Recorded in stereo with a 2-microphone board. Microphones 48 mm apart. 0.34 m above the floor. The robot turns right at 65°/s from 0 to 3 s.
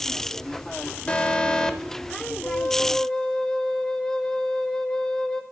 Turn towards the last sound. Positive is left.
turn(degrees=160)